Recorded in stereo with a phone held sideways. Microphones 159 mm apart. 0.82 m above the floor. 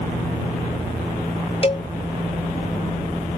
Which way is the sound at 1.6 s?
35° left (ahead or behind).